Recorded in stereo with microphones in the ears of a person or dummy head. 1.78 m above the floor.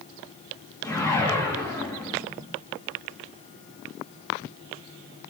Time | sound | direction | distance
0.8 | a whoosh | 15° left (ahead or behind) | 3 m